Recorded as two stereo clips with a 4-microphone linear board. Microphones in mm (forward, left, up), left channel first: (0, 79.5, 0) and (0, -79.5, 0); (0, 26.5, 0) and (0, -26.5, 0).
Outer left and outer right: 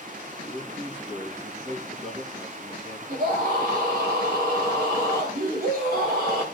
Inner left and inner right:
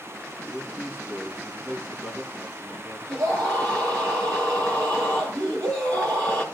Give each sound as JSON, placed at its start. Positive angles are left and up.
{"t": 0.5, "sound": "a man speaking", "side_deg": -40, "distance_m": 6.5}
{"t": 3.1, "sound": "a scream", "side_deg": -75, "distance_m": 8.0}